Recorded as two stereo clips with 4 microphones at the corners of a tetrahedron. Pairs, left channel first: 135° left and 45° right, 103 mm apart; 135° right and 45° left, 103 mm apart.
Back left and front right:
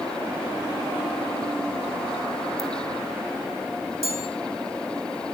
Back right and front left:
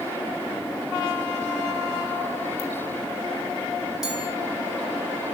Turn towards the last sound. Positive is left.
turn(degrees=-40)